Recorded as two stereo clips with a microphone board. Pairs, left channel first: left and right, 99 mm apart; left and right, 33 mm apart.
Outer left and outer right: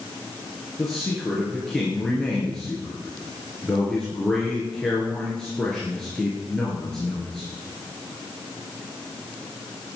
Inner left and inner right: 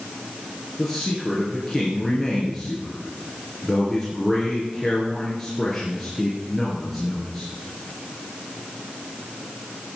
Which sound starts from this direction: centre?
A man speaking, at 0.8 s.